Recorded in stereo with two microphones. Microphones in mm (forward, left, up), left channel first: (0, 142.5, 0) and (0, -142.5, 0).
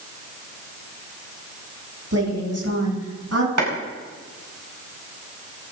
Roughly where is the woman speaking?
Right.